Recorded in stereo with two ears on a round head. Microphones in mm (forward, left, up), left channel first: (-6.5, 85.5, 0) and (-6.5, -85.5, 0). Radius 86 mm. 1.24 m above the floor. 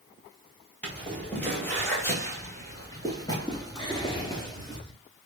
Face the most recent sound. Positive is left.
turn(degrees=25)  # may be behind; listen again after turning